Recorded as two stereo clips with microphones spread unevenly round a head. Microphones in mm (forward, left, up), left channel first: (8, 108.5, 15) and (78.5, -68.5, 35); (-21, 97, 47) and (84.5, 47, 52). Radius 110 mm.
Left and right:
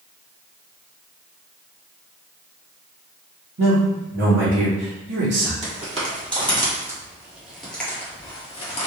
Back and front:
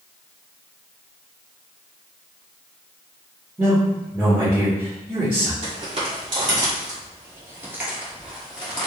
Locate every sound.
3.6 s a man speaking: 95° right, 1.3 m
5.6 s footsteps: 30° right, 1.7 m; by 8.9 s 95° left, 1.2 m